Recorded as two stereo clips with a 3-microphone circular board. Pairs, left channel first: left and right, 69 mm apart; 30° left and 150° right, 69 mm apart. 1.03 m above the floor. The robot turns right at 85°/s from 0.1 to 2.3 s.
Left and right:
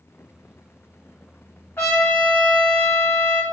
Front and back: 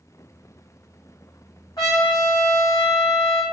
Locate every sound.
1.8 s a trumpet: 30° left, 1.5 m; by 3.4 s 75° left, 1.5 m